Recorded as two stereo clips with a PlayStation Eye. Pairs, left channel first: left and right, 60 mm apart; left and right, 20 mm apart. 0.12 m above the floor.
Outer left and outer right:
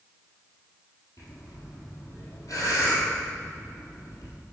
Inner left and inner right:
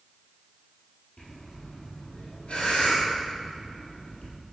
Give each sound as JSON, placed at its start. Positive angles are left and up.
{"t": 1.2, "sound": "breathing", "side_deg": 65, "distance_m": 3.0}